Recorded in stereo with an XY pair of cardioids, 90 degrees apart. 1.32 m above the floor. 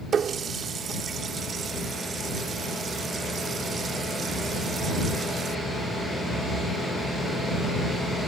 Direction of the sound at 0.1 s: 60° right.